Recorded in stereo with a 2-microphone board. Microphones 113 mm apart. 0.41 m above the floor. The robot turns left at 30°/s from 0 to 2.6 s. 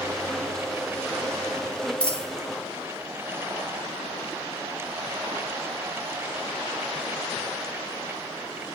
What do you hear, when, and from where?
2.0 s a dropped coin: 10° left (ahead or behind), 0.5 m; by 2.3 s 5° left (ahead or behind), 0.5 m